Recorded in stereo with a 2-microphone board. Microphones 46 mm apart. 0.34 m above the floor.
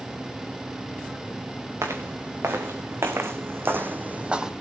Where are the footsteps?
80° right, 3.5 m; by 4.5 s 10° right (ahead or behind), 0.9 m.